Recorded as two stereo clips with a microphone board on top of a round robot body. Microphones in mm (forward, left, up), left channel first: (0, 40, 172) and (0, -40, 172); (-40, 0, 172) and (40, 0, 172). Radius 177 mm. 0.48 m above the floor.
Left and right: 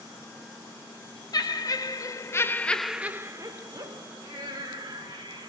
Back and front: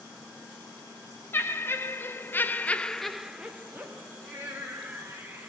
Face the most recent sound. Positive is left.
turn(degrees=-65)